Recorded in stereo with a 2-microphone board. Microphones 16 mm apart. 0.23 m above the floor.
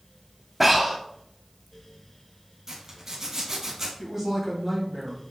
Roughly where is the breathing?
Centre.